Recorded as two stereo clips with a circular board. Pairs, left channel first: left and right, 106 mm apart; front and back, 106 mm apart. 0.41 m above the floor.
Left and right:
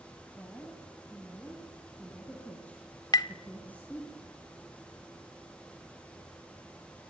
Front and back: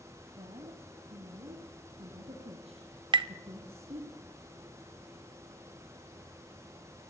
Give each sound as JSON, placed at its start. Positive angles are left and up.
{"t": 0.4, "sound": "a woman speaking", "azimuth_deg": 170, "distance_m": 3.5}
{"t": 3.1, "sound": "tapping", "azimuth_deg": 140, "distance_m": 0.7}